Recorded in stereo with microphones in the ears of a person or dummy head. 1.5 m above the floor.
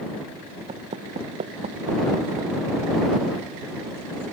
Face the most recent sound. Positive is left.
turn(degrees=-35)  # may be behind; listen again after turning